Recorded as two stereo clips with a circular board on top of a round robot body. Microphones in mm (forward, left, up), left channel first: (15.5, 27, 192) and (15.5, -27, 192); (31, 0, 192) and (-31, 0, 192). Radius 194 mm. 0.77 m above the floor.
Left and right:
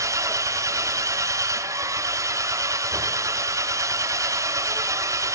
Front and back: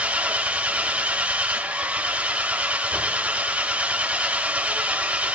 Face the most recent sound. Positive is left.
turn(degrees=-110)